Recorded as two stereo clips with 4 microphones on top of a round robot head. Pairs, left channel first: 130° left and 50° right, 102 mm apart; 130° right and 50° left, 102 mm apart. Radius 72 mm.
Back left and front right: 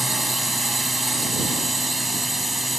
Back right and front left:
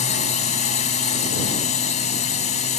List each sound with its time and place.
0.0 s a drone: 140° right